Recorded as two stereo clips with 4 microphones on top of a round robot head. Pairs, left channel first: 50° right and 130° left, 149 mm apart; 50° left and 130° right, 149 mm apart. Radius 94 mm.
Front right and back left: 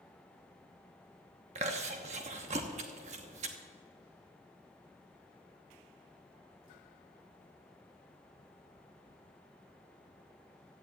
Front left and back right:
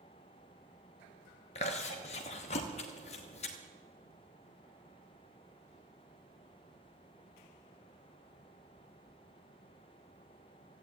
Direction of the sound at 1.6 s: 95° left.